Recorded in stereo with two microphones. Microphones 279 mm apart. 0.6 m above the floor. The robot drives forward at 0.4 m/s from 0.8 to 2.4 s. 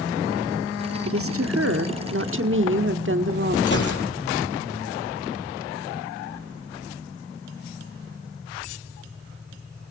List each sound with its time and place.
1.1 s a woman speaking: 50° right (ahead or behind), 1.2 m; by 3.6 s 45° right (ahead or behind), 1.3 m
3.7 s a gunshot: 40° left (ahead or behind), 5.5 m